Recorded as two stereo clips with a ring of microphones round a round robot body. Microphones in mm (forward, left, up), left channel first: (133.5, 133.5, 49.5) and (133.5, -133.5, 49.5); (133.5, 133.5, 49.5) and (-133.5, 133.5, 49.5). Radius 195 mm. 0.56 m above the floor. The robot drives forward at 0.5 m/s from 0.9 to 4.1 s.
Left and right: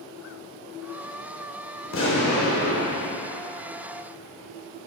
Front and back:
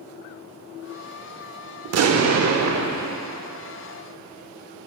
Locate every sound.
1.9 s an explosion: 145° left, 0.7 m; by 3.2 s 160° left, 1.3 m